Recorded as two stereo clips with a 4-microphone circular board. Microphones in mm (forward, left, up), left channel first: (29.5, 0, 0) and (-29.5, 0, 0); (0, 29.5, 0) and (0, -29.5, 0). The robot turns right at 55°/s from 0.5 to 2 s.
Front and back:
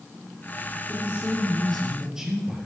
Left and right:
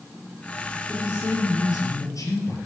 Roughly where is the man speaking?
Ahead left.